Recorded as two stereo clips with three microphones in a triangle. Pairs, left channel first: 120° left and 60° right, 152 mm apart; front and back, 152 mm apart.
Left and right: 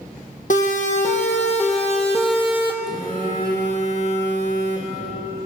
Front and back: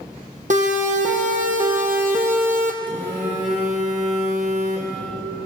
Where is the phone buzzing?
145° left, 8.5 m.